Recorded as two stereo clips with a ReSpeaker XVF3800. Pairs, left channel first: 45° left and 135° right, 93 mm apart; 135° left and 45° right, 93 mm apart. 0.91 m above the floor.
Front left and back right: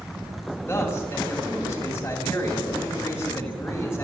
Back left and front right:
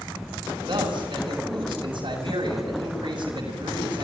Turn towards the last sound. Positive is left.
turn(degrees=-20)